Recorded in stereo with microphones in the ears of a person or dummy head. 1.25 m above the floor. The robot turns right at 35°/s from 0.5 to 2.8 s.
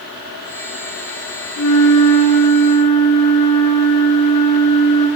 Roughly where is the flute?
Left.